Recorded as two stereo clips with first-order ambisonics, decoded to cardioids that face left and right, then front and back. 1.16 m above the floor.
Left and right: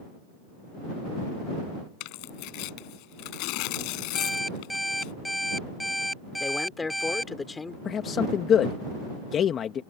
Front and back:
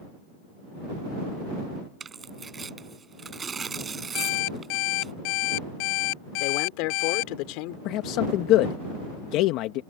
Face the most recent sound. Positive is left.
turn(degrees=30)